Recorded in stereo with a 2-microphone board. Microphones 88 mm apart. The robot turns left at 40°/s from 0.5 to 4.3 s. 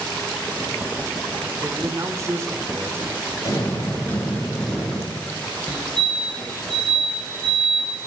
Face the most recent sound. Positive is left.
turn(degrees=10)  # may be behind; listen again after turning